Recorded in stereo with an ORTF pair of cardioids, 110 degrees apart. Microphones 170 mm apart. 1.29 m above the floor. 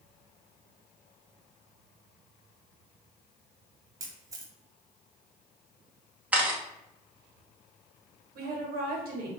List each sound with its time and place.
4.0 s a camera shutter: 20° right, 0.6 m
6.3 s a camera shutter: 10° right, 0.8 m
8.3 s a woman speaking: 60° right, 1.0 m